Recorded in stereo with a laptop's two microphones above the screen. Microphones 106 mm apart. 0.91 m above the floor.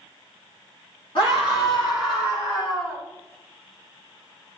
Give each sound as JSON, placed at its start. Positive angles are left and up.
{"t": 1.1, "sound": "a scream", "side_deg": 50, "distance_m": 2.5}